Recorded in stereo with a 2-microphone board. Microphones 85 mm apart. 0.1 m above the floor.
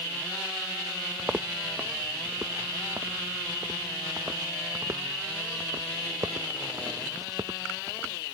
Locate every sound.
1.2 s footsteps: 15° right (ahead or behind); by 8.2 s 45° right (ahead or behind)